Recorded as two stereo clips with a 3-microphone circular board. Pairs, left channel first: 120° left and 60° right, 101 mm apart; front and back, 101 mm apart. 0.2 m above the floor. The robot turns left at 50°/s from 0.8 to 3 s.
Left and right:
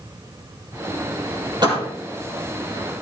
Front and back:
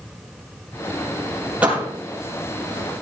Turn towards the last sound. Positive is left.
turn(degrees=-175)